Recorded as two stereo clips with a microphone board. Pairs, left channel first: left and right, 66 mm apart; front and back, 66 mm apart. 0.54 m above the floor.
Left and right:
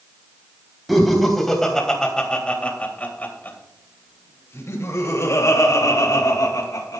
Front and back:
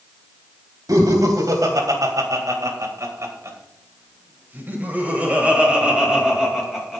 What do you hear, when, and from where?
0.9 s laughter: straight behind, 4 m; by 7.0 s 95° left, 3.5 m